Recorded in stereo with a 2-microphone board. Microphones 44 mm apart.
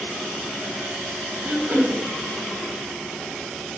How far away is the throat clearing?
About 0.8 m.